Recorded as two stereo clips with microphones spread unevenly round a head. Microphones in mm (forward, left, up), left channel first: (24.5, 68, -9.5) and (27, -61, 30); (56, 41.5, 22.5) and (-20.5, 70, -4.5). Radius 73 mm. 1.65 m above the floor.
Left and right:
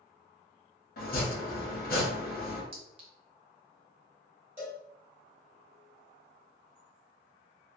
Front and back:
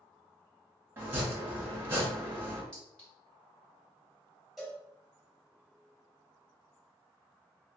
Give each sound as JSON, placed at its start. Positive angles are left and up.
{"t": 1.0, "sound": "chopping", "azimuth_deg": 90, "distance_m": 1.1}
{"t": 2.7, "sound": "a clink", "azimuth_deg": -85, "distance_m": 0.8}
{"t": 4.6, "sound": "a cowbell", "azimuth_deg": -80, "distance_m": 1.6}